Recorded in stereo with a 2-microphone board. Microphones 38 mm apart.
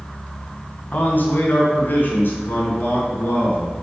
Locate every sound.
0.9 s a man speaking: 60° left (ahead or behind), 2 m; by 3.7 s 75° left (ahead or behind), 4.5 m